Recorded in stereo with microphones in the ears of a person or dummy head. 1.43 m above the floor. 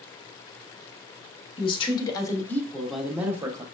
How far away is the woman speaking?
About 1.2 m.